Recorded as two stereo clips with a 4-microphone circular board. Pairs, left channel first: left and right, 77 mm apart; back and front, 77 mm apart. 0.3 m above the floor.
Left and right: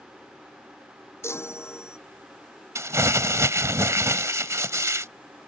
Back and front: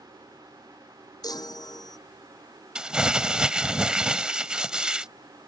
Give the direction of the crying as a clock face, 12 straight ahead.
No crying in this recording.